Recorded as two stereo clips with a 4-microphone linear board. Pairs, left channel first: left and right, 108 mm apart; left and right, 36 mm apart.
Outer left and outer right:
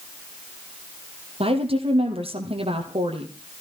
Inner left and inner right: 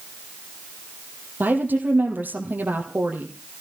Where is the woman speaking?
60° right (ahead or behind), 4 m.